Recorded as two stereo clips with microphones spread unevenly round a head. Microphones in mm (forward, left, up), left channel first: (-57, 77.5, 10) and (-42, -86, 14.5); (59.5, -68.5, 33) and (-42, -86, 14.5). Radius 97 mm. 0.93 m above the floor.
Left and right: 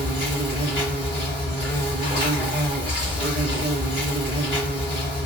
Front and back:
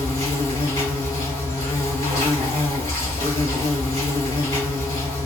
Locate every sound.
0.0 s an insect: 35° left, 1.7 m